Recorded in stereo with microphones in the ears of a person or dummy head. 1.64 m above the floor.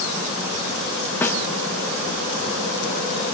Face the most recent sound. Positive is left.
turn(degrees=10)  # may be behind; listen again after turning